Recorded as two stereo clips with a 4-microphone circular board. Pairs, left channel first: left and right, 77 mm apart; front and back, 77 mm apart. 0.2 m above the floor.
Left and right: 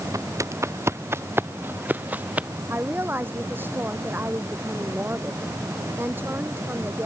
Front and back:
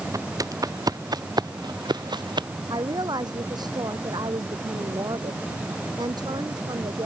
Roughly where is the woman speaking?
Behind right.